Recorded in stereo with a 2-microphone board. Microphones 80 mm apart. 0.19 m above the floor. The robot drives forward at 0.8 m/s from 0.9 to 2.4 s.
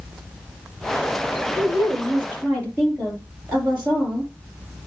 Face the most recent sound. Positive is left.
turn(degrees=-20)  # may be behind; listen again after turning